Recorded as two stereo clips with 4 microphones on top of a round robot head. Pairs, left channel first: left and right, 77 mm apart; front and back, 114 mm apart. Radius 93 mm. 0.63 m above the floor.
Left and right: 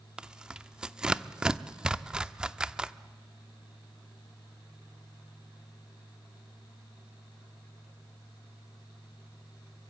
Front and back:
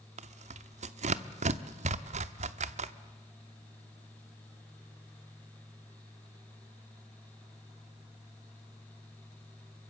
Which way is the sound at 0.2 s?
170° right.